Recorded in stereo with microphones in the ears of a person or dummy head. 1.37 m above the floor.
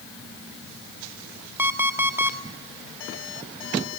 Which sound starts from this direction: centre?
An alarm clock, at 1.6 s.